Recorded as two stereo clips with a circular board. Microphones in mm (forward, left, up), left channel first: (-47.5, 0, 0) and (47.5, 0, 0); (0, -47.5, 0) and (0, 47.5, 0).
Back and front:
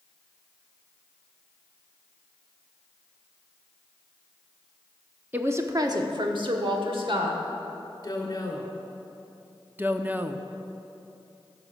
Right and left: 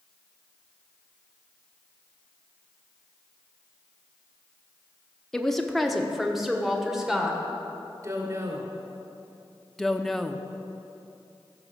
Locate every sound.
5.3 s a woman speaking: 15° right, 0.7 m; by 7.4 s 5° left, 1.8 m
8.0 s a woman speaking: 140° left, 2 m
9.8 s a woman speaking: 10° right, 0.6 m